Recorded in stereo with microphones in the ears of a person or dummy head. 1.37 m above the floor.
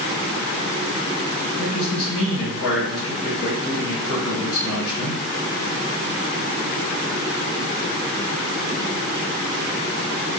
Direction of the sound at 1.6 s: 75° left (ahead or behind).